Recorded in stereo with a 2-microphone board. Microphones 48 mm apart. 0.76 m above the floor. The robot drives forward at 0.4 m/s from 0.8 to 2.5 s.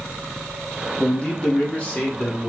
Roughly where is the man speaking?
Left.